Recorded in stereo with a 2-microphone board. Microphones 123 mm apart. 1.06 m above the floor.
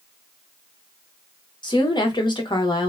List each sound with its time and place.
1.6 s a woman speaking: 40° left (ahead or behind), 0.8 m